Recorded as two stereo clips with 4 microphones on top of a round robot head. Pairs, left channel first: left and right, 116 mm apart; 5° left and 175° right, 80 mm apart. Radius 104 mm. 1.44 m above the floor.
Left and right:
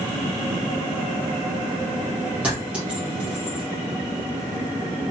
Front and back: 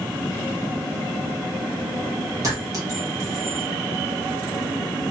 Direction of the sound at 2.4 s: 165° right.